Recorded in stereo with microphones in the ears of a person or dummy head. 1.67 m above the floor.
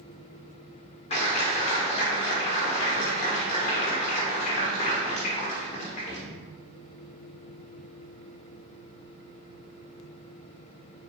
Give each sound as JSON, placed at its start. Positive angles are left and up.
{"t": 1.1, "sound": "a clap", "side_deg": 35, "distance_m": 1.0}